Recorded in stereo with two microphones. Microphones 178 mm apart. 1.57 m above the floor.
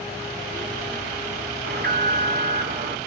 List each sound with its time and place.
1.6 s an alarm: 65° right (ahead or behind), 3 m